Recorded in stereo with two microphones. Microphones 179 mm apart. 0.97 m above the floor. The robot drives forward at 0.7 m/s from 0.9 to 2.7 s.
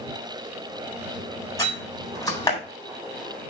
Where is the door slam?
20° left (ahead or behind), 4 m; by 2.6 s 25° left (ahead or behind), 3 m.